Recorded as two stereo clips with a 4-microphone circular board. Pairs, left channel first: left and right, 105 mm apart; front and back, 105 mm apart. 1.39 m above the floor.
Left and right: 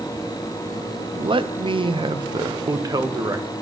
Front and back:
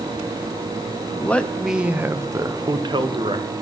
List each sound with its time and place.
1.1 s a man speaking: 65° right, 0.7 m; by 3.5 s 150° right, 1.3 m